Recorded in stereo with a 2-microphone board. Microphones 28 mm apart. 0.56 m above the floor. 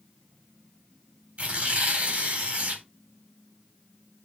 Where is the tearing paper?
60° right (ahead or behind), 4 m.